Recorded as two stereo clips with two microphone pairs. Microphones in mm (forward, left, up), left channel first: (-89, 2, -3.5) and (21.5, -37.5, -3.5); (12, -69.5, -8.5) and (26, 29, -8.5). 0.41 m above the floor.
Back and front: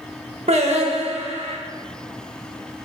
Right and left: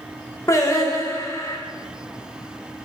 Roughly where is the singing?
Ahead right.